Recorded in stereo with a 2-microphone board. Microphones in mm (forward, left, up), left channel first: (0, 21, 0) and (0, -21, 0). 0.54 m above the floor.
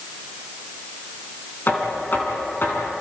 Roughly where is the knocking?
Left.